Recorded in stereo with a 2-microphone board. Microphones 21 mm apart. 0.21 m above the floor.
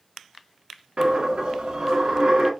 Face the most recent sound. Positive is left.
turn(degrees=-55)  # may be behind; listen again after turning